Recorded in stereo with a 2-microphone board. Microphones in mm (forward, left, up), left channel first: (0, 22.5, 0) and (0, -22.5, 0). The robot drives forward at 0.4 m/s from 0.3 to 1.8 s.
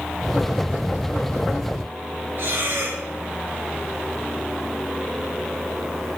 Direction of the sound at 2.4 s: 60° right (ahead or behind).